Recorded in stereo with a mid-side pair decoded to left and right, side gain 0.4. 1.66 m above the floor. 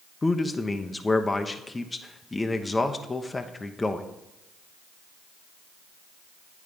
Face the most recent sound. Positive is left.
turn(degrees=25)